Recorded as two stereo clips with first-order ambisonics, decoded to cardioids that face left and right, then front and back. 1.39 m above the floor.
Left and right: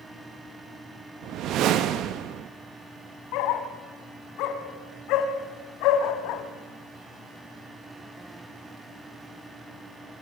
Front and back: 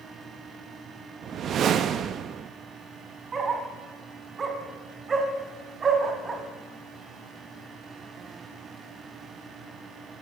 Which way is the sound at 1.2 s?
125° right.